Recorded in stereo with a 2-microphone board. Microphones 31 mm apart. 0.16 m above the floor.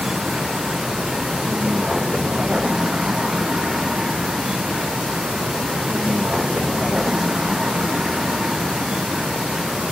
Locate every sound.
0.0 s a vehicle: 20° right (ahead or behind)